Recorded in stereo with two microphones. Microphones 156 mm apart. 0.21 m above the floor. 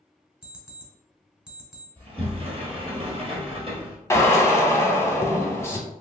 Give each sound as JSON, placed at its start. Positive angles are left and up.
{"t": 0.4, "sound": "an alarm clock", "side_deg": -5, "distance_m": 1.2}
{"t": 2.0, "sound": "a sliding door", "side_deg": -40, "distance_m": 1.0}
{"t": 4.1, "sound": "a drill", "side_deg": 20, "distance_m": 0.6}